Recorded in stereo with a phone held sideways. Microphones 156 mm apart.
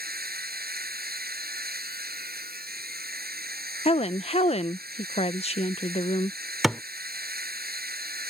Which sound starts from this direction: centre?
A thud, at 6.6 s.